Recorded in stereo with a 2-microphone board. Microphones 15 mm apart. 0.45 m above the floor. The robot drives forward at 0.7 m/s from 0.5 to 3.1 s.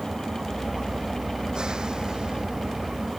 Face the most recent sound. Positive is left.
turn(degrees=-80)